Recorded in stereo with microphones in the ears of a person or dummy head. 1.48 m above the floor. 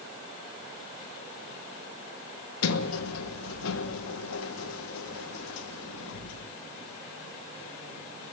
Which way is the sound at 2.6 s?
80° left.